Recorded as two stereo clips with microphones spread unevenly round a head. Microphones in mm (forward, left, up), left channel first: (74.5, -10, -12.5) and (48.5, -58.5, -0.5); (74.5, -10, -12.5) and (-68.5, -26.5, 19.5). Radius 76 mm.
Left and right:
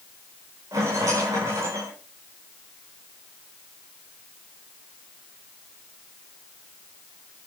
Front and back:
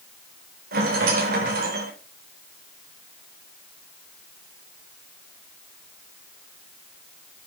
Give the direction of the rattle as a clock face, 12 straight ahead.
5 o'clock.